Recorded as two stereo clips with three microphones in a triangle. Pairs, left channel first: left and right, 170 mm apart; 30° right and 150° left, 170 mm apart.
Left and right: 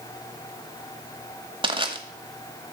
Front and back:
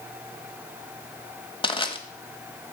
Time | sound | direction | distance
1.6 | crushing | 60° right | 0.9 m